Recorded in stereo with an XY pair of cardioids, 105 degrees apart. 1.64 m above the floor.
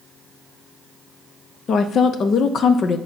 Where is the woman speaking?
55° left, 0.6 m.